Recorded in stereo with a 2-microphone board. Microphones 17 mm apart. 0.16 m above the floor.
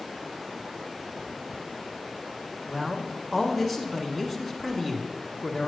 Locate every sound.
2.7 s a man speaking: 5° right (ahead or behind), 1.6 m